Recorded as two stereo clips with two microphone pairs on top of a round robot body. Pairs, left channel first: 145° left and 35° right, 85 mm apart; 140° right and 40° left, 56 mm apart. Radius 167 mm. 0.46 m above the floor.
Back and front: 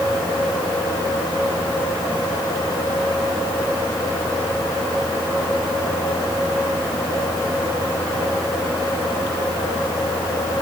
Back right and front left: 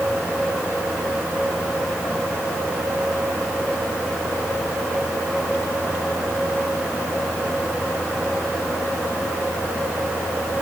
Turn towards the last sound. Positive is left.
No sound to turn to.